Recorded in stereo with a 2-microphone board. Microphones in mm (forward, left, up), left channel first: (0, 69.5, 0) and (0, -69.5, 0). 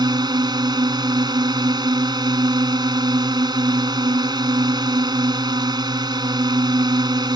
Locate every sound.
0.0 s a drone: 35° right (ahead or behind)